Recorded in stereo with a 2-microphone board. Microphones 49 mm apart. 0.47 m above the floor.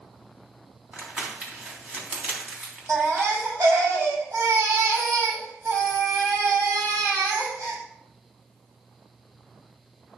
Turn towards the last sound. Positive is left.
turn(degrees=-85)